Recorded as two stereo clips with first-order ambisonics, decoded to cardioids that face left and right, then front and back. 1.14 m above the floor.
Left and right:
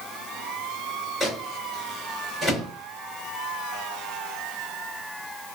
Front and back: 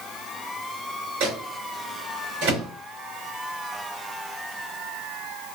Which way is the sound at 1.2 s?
Straight behind.